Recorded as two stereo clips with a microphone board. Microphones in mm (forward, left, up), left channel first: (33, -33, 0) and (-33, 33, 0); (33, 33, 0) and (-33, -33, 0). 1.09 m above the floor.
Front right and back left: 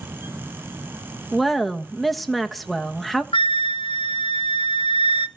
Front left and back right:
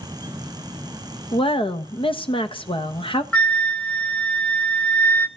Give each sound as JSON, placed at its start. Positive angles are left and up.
{"t": 1.3, "sound": "a woman speaking", "azimuth_deg": 45, "distance_m": 1.3}
{"t": 3.3, "sound": "a flute", "azimuth_deg": -30, "distance_m": 0.9}